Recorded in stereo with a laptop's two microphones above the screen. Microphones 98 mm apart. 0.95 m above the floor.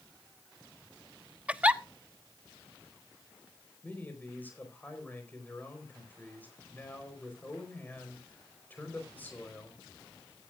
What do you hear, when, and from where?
1.5 s a giggle: 15° right (ahead or behind), 0.5 m
3.8 s a man speaking: 20° left (ahead or behind), 4.5 m